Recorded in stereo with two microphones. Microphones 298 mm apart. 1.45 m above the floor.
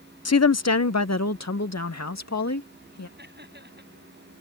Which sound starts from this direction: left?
A woman speaking, at 0.2 s.